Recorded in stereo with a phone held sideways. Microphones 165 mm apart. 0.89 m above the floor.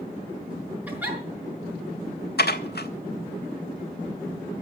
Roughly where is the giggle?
Centre.